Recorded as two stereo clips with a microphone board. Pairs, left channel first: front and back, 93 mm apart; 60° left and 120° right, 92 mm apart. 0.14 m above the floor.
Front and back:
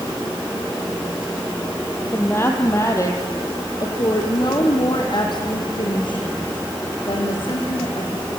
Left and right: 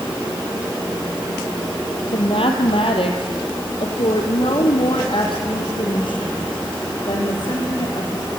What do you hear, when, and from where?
2.1 s a woman speaking: 65° left, 4 m; by 8.3 s 20° left, 8.5 m